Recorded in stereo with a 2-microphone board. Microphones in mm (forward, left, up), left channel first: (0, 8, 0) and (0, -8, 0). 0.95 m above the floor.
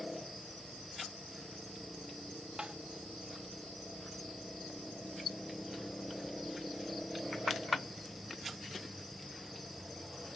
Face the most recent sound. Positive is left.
turn(degrees=-65)  # may be behind; listen again after turning